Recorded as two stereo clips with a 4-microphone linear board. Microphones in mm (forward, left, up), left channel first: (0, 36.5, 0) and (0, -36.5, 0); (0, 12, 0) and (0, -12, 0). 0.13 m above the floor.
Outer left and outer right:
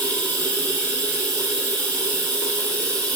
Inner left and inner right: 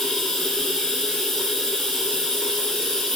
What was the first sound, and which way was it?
Running water, 25° left (ahead or behind).